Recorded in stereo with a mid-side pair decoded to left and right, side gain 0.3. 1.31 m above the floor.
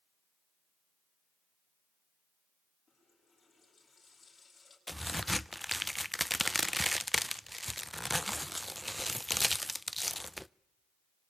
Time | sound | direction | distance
2.9 | a running tap | 45° left | 9 m
4.9 | a crack | 10° left | 0.5 m